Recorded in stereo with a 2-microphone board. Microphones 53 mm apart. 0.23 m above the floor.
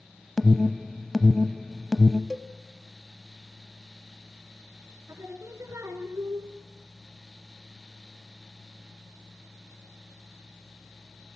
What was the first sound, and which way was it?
An alarm, 5° left (ahead or behind).